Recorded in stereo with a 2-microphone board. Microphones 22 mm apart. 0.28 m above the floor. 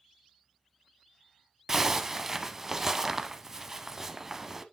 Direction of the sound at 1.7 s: 20° right (ahead or behind).